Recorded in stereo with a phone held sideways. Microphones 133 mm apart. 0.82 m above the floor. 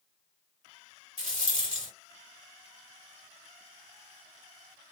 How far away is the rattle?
About 1.4 m.